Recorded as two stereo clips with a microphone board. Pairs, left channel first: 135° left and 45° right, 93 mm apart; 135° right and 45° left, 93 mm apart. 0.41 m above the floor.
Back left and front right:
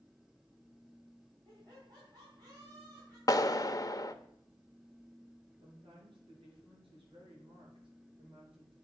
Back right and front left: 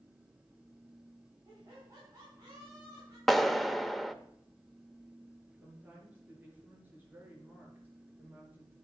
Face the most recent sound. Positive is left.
turn(degrees=-25)